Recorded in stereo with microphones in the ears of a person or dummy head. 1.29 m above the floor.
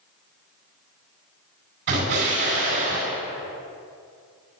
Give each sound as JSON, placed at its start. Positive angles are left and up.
{"t": 1.9, "sound": "an explosion", "side_deg": -65, "distance_m": 4.5}